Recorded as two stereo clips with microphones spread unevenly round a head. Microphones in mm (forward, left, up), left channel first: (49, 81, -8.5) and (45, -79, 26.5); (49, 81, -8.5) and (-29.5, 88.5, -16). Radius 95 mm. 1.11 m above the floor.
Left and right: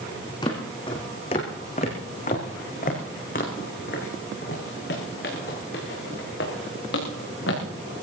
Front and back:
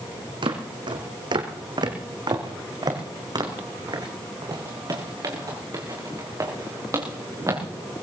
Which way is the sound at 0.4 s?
160° left.